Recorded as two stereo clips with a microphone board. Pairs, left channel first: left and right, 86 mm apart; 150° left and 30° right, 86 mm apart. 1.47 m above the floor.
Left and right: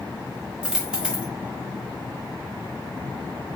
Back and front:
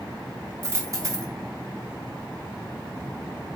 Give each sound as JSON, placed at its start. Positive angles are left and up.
{"t": 0.6, "sound": "a dropped coin", "azimuth_deg": -15, "distance_m": 0.9}